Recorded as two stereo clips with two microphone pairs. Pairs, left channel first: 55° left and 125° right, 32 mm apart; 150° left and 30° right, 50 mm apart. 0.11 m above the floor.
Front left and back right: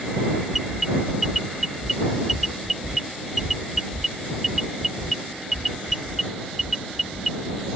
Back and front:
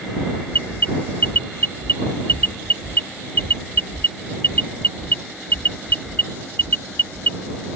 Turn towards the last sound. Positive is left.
turn(degrees=165)